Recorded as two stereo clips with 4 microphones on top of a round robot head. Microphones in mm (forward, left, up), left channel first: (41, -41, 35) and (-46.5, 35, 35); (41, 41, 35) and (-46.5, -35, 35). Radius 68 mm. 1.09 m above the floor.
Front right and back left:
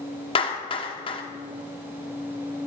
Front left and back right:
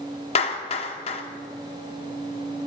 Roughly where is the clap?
Ahead.